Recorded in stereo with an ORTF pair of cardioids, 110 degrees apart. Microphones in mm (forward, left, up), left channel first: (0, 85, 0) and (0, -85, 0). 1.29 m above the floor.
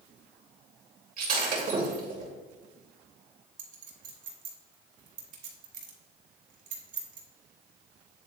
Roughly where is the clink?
Ahead right.